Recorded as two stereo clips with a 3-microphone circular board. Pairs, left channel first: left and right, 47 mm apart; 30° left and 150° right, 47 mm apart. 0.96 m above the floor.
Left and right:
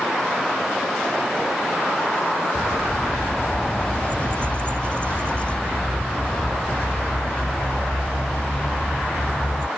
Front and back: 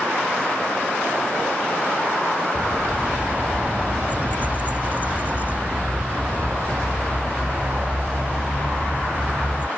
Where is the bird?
155° left.